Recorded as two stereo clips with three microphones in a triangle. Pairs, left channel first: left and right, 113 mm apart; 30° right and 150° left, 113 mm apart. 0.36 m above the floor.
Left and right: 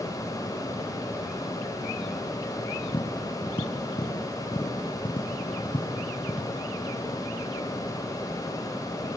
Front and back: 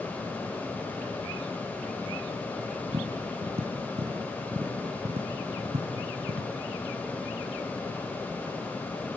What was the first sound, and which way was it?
Tapping, 130° left.